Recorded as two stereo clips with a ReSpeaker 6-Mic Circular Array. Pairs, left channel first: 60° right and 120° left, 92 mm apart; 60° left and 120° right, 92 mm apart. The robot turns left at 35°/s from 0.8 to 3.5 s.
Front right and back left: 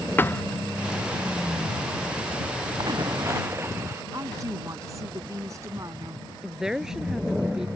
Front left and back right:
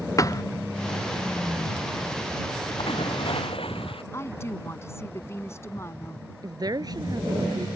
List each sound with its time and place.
0.2 s a thud: 10° left
2.8 s a splash: 80° left; by 4.0 s 55° left
4.1 s a woman speaking: 100° left
6.4 s a woman speaking: 155° right